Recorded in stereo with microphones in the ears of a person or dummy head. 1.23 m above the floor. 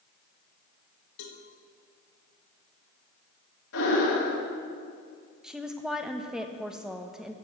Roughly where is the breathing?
Left.